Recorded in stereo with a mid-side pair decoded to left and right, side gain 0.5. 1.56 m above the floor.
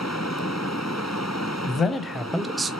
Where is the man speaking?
50° left, 0.8 m; by 2.7 s 30° right, 0.5 m.